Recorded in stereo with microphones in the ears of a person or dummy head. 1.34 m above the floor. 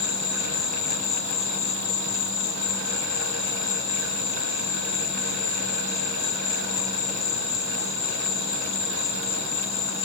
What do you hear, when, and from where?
0.0 s an insect: 50° left (ahead or behind), 3.5 m